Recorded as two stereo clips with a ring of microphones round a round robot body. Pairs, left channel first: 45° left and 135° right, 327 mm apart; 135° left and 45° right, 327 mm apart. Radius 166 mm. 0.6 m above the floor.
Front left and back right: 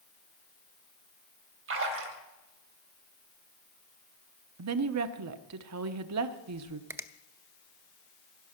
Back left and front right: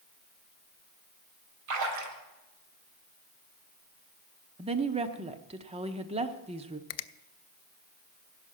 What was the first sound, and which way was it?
A splash, 80° right.